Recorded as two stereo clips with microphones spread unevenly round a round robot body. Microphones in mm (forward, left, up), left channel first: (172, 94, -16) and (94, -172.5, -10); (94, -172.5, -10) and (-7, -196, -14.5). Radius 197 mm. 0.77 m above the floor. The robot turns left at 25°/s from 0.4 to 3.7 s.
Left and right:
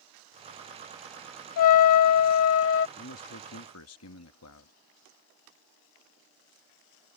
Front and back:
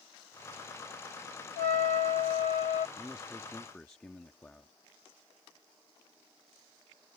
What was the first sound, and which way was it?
A trumpet, 55° left.